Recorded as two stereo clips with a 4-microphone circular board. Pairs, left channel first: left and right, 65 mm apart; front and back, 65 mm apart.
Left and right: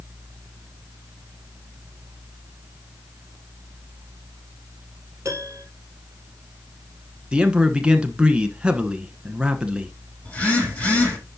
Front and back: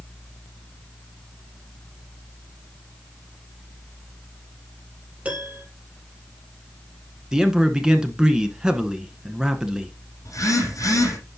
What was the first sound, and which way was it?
A piano, 120° right.